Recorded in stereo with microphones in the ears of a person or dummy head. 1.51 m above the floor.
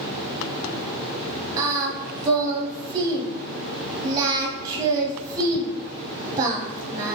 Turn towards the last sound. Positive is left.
turn(degrees=-20)  # may be behind; listen again after turning